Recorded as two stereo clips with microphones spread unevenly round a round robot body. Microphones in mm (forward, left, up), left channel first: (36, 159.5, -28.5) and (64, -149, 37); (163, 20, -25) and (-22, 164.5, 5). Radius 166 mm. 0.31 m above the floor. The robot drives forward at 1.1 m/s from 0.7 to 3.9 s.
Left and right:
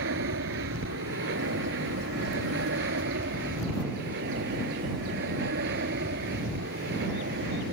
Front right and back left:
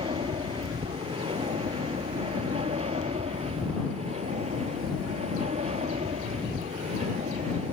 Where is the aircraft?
140° right; by 7.7 s 145° right.